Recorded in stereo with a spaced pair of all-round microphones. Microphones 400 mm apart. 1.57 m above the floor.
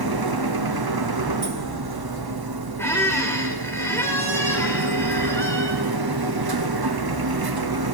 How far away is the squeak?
About 1.7 m.